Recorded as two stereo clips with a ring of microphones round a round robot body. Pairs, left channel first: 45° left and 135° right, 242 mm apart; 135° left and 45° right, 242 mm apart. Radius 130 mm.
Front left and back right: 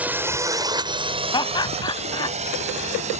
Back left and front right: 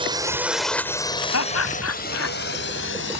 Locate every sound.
0.0 s a drone: 65° right; by 3.2 s 165° left
1.3 s laughter: 115° left